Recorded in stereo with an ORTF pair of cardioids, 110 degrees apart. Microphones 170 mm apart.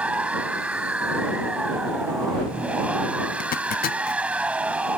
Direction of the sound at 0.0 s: 5° right.